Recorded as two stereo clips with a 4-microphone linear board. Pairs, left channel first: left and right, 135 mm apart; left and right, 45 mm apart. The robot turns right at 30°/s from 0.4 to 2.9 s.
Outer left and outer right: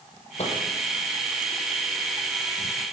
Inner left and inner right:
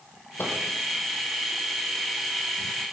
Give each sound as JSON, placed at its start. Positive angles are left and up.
{"t": 0.4, "sound": "a microwave", "side_deg": 55, "distance_m": 4.5}